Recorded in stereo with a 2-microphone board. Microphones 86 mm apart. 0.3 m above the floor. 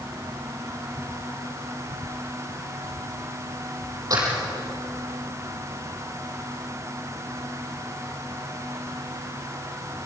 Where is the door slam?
45° right (ahead or behind), 6 m.